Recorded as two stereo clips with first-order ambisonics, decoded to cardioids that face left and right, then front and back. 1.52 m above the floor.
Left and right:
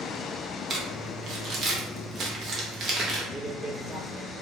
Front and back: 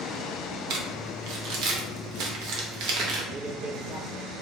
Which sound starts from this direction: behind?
A man speaking, at 3.3 s.